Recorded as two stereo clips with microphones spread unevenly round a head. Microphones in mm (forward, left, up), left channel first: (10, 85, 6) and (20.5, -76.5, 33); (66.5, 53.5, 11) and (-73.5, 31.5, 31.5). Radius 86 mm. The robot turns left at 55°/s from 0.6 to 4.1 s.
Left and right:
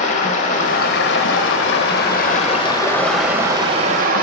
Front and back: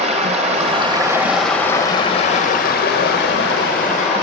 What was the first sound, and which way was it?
Running water, 145° left.